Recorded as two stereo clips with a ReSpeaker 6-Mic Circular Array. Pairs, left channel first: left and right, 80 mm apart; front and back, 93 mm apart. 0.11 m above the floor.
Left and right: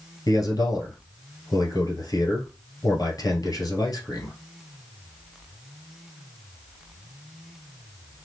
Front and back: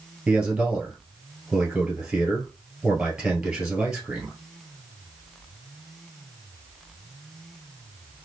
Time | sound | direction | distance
0.3 | a man speaking | 105° left | 1.7 m